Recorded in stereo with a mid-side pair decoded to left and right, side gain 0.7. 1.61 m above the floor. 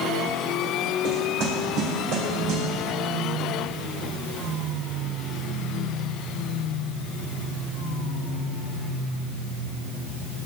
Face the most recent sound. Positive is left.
turn(degrees=-65)